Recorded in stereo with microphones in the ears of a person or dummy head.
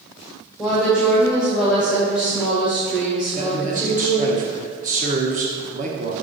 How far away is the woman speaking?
About 1.9 m.